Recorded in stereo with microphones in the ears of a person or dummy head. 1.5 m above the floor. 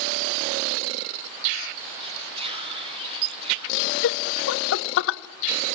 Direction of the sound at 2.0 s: 25° right (ahead or behind).